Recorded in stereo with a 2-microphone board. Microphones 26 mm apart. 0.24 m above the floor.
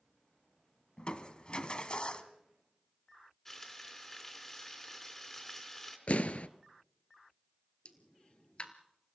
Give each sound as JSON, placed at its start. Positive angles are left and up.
{"t": 1.0, "sound": "crushing", "side_deg": 40, "distance_m": 1.5}
{"t": 3.5, "sound": "frying", "side_deg": 15, "distance_m": 3.5}
{"t": 6.1, "sound": "an explosion", "side_deg": 60, "distance_m": 0.9}
{"t": 7.8, "sound": "a pop", "side_deg": 45, "distance_m": 1.5}